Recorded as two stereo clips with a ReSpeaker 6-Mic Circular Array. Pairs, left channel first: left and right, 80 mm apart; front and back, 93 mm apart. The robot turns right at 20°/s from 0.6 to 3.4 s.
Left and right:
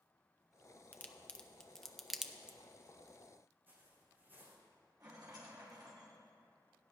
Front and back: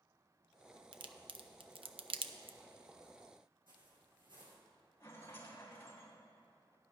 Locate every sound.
0.9 s a crack: 155° left, 0.5 m; by 2.6 s 170° right, 0.5 m
3.7 s footsteps: 155° right, 3.5 m
5.0 s a rattle: 60° right, 3.5 m